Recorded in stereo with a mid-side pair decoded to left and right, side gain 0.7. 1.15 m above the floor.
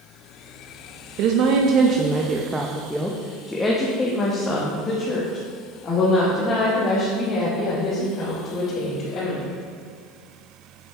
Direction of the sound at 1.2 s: 65° right.